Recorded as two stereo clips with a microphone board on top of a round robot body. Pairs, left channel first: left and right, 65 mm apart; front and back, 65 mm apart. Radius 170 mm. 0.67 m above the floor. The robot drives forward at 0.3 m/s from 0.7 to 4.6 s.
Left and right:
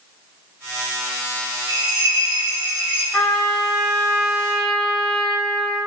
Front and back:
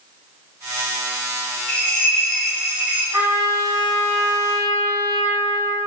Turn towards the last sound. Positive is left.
turn(degrees=170)